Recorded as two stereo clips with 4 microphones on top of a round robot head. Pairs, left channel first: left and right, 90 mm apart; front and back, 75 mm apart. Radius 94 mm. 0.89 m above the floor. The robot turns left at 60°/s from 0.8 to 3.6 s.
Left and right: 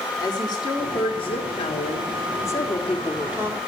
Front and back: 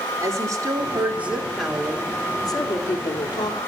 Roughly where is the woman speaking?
Behind left.